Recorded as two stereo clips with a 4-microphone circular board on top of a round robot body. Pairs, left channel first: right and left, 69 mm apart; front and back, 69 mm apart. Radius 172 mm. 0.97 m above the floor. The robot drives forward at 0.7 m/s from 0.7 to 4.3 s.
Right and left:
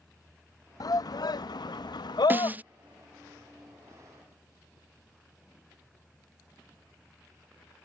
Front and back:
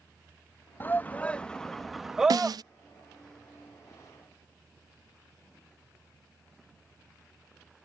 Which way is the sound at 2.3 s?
155° left.